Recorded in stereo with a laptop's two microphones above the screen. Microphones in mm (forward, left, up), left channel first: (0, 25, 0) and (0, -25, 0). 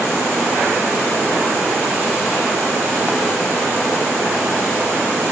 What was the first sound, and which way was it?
Only background noise.